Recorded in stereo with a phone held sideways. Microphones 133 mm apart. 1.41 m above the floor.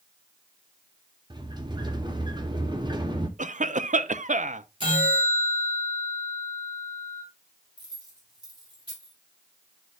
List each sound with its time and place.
1.3 s a sliding door: 35° right (ahead or behind), 0.9 m
3.4 s a cough: 70° right (ahead or behind), 0.5 m
4.8 s a bell: 40° right (ahead or behind), 4 m
7.8 s keys jangling: 30° right (ahead or behind), 6 m